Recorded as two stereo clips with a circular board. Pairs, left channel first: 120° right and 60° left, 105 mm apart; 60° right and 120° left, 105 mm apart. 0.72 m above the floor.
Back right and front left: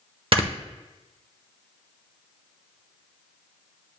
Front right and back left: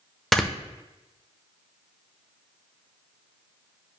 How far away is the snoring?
About 0.8 m.